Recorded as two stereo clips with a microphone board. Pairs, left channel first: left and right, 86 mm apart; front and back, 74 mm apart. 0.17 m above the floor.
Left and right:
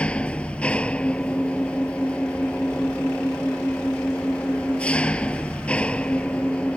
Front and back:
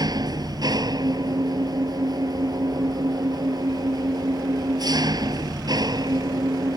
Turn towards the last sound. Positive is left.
turn(degrees=165)